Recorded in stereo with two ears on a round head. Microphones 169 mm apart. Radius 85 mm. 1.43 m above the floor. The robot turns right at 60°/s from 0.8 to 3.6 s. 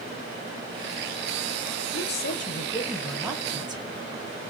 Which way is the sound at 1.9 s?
105° left.